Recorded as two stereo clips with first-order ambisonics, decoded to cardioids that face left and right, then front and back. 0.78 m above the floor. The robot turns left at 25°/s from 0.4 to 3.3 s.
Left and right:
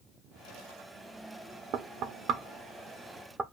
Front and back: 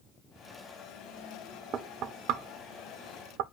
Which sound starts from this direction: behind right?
Knocking, at 1.7 s.